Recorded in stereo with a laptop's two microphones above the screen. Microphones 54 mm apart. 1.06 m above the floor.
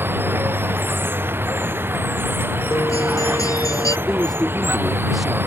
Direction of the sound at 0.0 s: 40° right (ahead or behind).